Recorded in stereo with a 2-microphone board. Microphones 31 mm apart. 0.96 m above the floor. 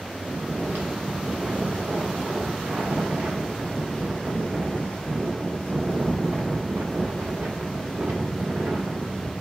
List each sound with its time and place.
0.2 s snoring: 80° right, 1.1 m